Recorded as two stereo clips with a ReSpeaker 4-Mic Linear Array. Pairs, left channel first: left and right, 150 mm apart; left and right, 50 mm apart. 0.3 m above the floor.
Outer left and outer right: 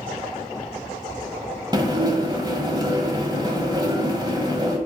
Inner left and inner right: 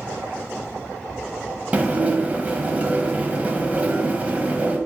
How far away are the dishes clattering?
About 1.2 m.